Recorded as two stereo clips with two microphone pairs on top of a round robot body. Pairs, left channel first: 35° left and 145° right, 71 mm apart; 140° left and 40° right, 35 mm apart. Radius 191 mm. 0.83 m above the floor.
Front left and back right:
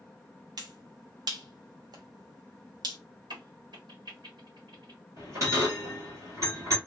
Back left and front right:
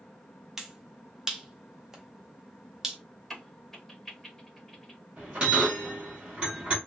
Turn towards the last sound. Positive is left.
turn(degrees=-95)